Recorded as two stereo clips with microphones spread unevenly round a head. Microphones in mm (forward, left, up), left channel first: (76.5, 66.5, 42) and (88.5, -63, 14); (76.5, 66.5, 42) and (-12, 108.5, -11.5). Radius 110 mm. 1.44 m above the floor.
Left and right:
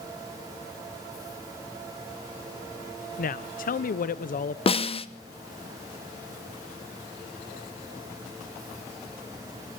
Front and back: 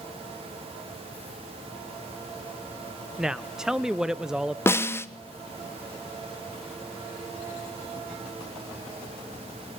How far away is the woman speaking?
About 0.8 m.